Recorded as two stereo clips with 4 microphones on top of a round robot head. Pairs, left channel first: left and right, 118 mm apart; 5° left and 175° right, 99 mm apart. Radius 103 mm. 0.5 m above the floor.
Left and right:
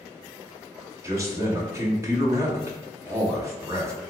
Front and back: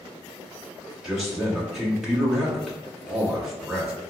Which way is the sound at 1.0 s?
95° right.